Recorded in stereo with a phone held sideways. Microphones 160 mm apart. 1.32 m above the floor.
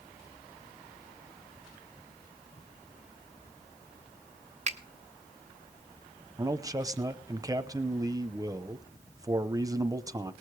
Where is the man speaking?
20° right (ahead or behind), 0.8 m.